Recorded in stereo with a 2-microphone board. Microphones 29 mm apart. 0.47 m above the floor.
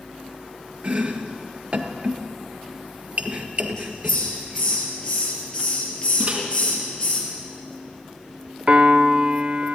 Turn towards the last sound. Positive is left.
turn(degrees=-45)  # may be behind; listen again after turning